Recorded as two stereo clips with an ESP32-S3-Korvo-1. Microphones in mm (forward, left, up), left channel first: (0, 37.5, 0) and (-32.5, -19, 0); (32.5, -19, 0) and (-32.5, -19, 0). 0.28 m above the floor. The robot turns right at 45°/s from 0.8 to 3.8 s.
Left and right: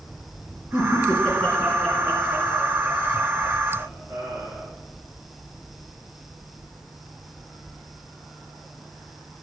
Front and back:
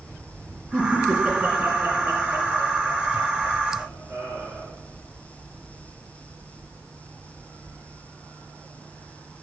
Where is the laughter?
110° left, 4.5 m; by 4.7 s 115° right, 4.5 m.